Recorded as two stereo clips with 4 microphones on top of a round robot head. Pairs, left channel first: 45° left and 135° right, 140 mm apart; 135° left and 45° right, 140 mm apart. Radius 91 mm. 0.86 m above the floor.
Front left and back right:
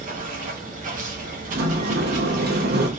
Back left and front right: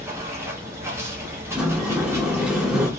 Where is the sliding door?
130° right, 0.8 m.